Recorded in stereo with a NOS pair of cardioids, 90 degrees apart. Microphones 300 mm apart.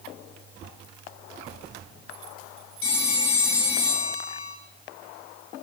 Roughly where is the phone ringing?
Ahead left.